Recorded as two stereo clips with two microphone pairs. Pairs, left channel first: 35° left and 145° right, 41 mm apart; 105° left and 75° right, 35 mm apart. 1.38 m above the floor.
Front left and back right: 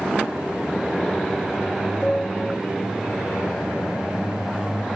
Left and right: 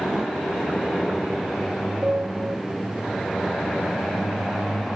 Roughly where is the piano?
Ahead right.